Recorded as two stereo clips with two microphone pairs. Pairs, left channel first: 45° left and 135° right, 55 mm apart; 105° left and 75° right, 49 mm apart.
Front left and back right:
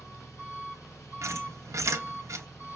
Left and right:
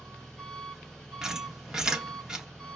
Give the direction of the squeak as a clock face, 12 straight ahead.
5 o'clock.